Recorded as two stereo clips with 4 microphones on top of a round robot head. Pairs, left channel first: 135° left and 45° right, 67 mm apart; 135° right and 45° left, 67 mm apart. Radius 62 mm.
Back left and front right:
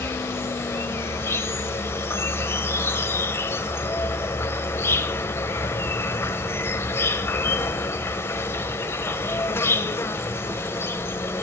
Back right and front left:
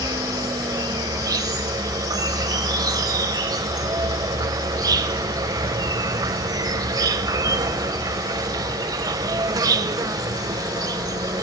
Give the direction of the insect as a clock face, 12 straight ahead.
9 o'clock.